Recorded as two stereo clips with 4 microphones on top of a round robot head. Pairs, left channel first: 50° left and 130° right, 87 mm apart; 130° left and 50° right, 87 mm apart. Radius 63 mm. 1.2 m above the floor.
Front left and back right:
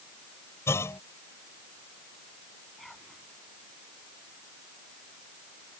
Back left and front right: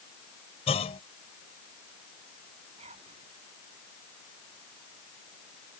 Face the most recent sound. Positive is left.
turn(degrees=-35)